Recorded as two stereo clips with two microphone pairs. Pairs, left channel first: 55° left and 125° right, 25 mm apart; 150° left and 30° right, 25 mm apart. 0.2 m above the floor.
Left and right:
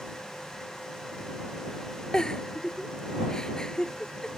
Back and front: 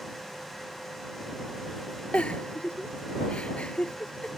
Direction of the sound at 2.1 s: 120° left.